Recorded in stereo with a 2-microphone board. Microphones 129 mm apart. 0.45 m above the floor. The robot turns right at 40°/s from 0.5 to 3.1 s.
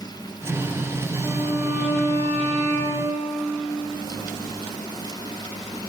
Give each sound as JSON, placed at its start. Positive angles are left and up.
{"t": 1.2, "sound": "a violin", "azimuth_deg": 175, "distance_m": 8.5}